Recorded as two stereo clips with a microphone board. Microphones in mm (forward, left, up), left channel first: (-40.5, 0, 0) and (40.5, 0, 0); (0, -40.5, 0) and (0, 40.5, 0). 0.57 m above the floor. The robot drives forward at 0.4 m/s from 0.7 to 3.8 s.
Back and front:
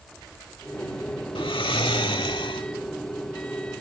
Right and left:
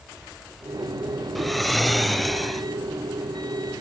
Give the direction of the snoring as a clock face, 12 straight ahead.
6 o'clock.